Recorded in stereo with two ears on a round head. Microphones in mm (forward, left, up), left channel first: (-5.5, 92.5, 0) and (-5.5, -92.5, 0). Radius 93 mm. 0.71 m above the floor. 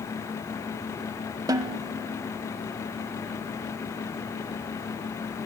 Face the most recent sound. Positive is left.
turn(degrees=-20)  # may be behind; listen again after turning